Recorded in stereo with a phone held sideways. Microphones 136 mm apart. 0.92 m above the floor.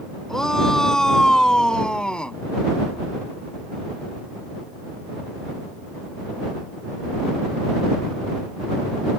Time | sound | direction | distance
0.3 | a shout | 5° left (ahead or behind) | ?